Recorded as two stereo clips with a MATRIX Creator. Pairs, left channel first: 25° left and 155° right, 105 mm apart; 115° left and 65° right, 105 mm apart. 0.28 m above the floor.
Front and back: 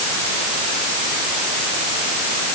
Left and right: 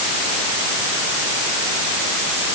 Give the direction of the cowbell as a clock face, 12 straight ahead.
No cowbell in this recording.